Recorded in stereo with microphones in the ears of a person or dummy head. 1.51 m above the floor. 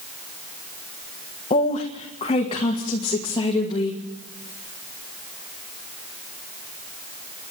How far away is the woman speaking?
About 1.5 m.